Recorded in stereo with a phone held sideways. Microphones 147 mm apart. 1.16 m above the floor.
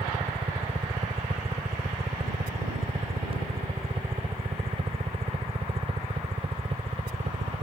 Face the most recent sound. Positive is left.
turn(degrees=-40)  # may be behind; listen again after turning